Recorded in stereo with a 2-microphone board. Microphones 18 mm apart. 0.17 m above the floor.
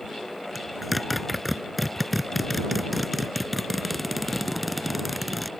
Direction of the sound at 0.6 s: Centre (ahead or behind).